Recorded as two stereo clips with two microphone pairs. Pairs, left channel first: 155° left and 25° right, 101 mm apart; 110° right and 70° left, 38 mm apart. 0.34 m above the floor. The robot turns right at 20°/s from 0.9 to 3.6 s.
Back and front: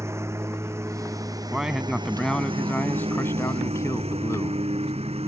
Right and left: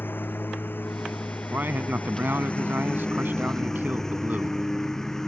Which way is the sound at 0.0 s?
90° right.